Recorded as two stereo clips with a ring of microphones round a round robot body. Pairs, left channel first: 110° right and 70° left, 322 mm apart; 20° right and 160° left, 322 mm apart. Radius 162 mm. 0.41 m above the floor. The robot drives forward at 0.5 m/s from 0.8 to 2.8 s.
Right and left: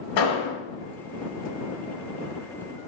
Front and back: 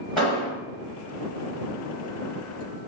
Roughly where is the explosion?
Right.